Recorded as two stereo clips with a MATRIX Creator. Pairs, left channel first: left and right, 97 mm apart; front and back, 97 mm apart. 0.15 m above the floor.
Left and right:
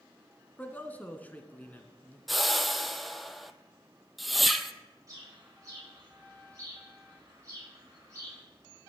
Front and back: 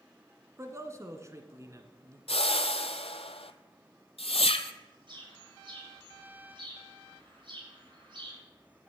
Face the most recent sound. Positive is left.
turn(degrees=-145)